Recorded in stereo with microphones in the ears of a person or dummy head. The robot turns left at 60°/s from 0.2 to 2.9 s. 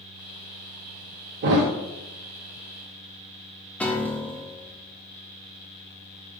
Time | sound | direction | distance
1.4 | a thud | 45° right (ahead or behind) | 0.8 m
3.8 | a piano | 10° left (ahead or behind) | 0.6 m